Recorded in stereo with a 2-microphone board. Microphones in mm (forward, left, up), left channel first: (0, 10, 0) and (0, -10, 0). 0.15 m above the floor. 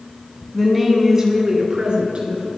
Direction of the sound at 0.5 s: 5° left (ahead or behind).